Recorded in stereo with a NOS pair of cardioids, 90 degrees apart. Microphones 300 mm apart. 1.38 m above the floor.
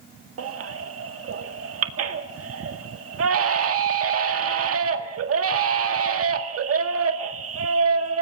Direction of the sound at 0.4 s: 50° right.